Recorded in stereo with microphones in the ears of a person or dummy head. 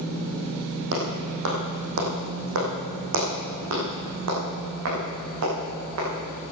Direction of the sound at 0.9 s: 45° right (ahead or behind).